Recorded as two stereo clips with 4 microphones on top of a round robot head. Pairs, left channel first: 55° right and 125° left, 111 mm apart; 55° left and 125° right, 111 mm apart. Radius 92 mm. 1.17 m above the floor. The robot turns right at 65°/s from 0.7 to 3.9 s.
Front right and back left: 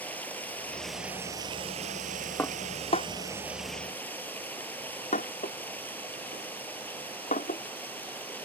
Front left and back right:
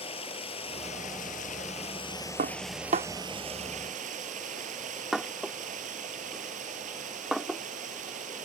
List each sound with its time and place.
0.0 s running water: 20° left; by 8.5 s 135° right
2.4 s dishes clattering: 130° right; by 7.6 s 35° right